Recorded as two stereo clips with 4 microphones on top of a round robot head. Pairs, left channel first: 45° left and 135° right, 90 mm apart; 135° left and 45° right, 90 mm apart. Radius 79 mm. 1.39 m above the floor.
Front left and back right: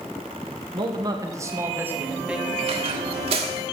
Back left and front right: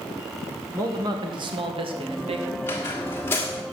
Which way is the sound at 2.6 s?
160° right.